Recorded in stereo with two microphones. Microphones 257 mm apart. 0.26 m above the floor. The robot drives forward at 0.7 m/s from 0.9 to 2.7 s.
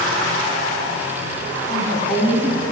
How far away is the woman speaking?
About 2.0 m.